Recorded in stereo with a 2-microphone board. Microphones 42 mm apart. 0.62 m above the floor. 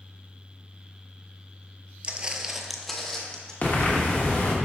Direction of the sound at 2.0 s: 30° right (ahead or behind).